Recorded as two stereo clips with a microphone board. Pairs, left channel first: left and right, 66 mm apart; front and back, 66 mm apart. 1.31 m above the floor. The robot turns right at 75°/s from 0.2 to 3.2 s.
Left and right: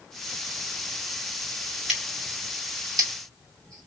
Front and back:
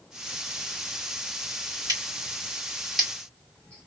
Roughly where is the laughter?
I don't hear laughter.